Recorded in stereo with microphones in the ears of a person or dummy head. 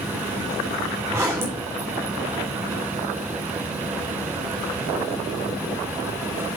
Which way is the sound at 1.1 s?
15° right (ahead or behind).